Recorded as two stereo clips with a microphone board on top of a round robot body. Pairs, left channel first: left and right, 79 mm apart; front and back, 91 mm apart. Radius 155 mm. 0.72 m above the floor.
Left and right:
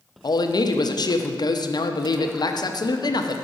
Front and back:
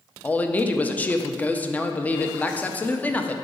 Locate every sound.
0.2 s a man speaking: 70° left, 0.8 m